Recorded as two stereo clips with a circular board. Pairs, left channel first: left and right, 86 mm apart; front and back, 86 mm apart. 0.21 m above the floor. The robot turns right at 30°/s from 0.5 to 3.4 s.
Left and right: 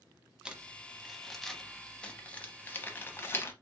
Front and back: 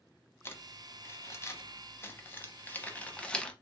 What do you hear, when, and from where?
0.5 s crumpling: 20° right, 0.7 m; by 3.5 s 65° left, 0.7 m